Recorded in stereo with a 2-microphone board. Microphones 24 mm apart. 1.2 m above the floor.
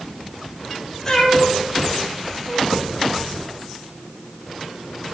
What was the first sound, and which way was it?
A cat meowing, 5° left (ahead or behind).